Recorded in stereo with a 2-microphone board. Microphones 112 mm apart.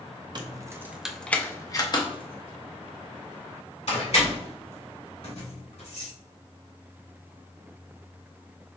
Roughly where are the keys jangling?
Right.